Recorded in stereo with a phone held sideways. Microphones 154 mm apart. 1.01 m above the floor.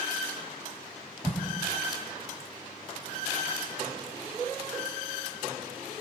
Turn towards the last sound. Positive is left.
turn(degrees=-5)  # may be behind; listen again after turning